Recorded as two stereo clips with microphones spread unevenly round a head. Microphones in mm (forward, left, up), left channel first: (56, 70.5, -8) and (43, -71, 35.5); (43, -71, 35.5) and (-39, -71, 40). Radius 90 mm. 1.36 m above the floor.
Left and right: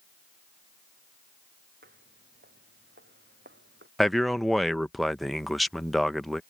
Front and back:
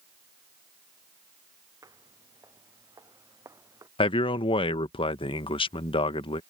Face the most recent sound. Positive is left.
turn(degrees=-10)